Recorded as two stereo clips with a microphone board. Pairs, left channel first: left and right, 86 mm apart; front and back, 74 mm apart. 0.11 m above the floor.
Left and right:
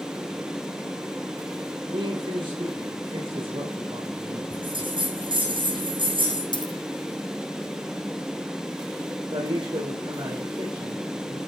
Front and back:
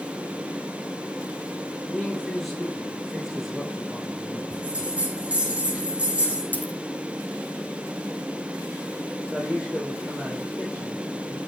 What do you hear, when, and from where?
1.8 s a man speaking: 85° right, 6.5 m; by 4.4 s 95° right, 6.5 m
4.5 s a bell: 105° right, 6.5 m
6.5 s a dropped coin: 65° left, 2 m
9.3 s a man speaking: 95° right, 5.5 m